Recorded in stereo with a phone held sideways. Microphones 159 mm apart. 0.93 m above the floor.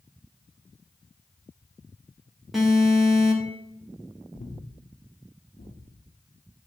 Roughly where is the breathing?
Left.